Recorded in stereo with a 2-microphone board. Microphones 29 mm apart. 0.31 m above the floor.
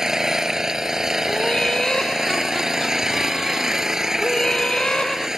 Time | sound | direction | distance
0.0 | an engine running | 15° right (ahead or behind) | ?
1.3 | laughter | 25° left (ahead or behind) | ?